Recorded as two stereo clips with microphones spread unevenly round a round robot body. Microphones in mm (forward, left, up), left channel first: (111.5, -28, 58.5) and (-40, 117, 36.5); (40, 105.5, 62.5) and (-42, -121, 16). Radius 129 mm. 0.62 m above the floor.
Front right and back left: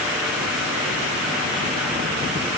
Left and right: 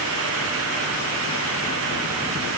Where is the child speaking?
I don't hear a child speaking.